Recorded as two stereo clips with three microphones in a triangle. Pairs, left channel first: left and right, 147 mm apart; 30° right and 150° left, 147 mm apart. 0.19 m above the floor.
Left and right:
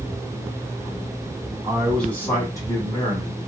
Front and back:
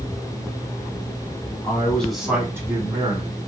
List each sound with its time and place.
1.6 s a man speaking: 10° right, 1.1 m; by 3.4 s 125° left, 1.5 m